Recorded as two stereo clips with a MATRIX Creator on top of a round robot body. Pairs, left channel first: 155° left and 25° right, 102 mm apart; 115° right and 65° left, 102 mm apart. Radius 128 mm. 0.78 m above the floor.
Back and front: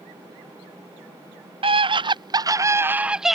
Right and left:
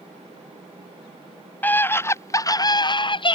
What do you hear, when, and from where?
1.6 s a scream: 40° right; by 3.4 s 110° right